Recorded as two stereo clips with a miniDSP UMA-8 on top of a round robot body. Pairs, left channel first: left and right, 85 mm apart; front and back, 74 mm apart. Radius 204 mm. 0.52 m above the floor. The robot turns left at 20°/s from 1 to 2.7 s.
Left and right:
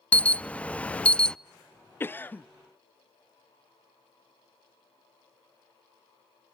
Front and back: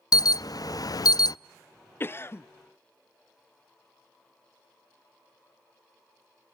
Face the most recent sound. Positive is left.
turn(degrees=25)